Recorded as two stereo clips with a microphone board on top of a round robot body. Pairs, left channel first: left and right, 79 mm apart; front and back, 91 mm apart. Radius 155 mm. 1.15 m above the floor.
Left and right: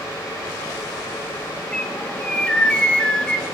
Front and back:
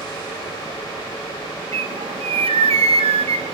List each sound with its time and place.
1.7 s a bird: 170° left, 1.3 m